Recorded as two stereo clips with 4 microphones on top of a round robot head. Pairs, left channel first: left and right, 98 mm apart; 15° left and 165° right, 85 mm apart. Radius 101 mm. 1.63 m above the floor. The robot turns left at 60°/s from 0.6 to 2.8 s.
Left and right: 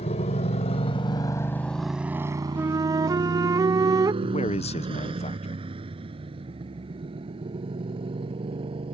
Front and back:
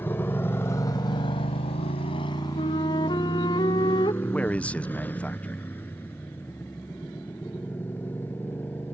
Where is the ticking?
No ticking in this recording.